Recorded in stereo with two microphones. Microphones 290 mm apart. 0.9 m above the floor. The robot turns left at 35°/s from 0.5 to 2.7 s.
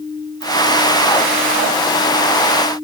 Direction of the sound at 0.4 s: 60° right (ahead or behind).